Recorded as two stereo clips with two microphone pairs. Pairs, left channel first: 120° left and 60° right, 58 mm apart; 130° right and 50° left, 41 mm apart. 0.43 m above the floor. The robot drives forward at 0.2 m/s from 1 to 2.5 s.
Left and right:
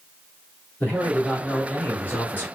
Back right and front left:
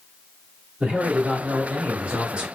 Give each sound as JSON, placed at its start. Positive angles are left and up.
{"t": 0.8, "sound": "a man speaking", "azimuth_deg": 85, "distance_m": 1.7}